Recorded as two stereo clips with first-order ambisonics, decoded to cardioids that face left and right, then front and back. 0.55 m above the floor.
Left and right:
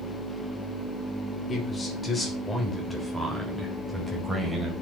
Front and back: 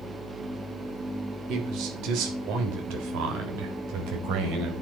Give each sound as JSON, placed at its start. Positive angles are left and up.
{"t": 1.5, "sound": "a man speaking", "azimuth_deg": 155, "distance_m": 2.0}